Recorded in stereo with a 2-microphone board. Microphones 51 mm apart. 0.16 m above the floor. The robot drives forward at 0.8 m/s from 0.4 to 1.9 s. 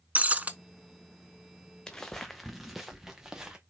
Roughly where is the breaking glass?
Right.